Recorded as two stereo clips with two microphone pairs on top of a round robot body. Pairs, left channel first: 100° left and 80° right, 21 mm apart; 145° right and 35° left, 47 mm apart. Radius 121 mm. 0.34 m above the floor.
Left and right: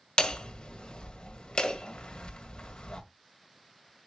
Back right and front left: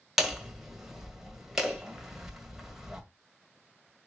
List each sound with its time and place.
0.2 s hammering: 120° left, 1.8 m